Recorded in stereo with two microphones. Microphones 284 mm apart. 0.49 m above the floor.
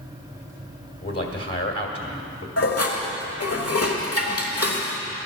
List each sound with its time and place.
1.0 s a man speaking: 55° left (ahead or behind), 1.7 m
2.6 s dishes clattering: 60° left (ahead or behind), 1.2 m